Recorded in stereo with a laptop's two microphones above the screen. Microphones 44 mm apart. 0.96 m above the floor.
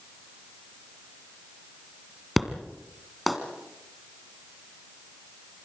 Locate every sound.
2.4 s an explosion: centre (ahead or behind), 1.8 m